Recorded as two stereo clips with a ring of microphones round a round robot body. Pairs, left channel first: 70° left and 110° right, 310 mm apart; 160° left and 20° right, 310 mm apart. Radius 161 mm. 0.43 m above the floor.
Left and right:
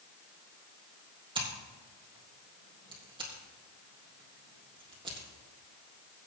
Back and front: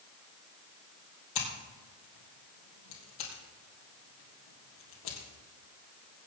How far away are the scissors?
About 3.5 m.